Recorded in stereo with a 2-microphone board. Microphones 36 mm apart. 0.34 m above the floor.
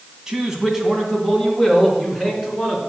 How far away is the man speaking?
About 2 m.